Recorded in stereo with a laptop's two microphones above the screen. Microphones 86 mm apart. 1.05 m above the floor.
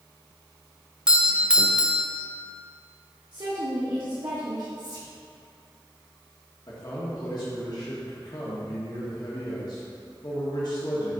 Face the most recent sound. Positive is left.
turn(degrees=50)  # may be behind; listen again after turning